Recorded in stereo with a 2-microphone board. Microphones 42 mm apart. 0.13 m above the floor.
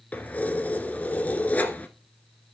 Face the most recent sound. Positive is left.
turn(degrees=35)  # may be behind; listen again after turning